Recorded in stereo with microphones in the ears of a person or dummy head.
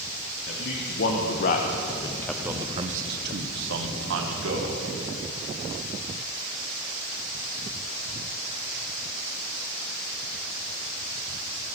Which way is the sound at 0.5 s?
65° left (ahead or behind).